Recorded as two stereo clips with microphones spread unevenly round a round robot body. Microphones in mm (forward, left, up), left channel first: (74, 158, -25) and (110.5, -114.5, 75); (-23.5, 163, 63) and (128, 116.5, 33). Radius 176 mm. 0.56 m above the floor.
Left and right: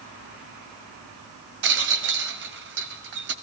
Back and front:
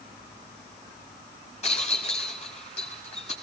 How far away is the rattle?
About 0.7 m.